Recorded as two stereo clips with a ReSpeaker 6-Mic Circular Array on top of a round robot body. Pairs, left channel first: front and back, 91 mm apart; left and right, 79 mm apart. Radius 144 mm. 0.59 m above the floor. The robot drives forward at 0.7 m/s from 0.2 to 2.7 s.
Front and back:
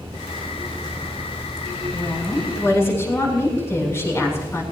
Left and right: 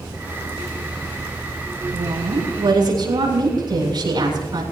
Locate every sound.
1.9 s a woman speaking: 60° right, 8 m